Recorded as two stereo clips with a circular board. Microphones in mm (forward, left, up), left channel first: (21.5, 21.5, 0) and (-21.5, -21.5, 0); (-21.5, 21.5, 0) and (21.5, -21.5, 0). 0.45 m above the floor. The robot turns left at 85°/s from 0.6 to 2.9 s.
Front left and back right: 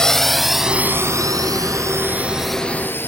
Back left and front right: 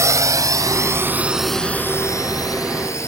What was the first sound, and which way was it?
A drone, 35° right.